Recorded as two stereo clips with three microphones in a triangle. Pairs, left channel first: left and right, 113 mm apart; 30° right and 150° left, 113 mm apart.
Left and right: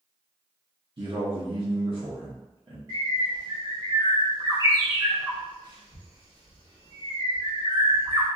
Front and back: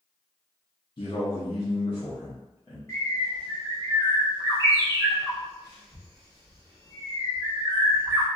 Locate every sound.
1.0 s a man speaking: 65° right, 0.8 m
2.9 s a bird: 65° right, 1.3 m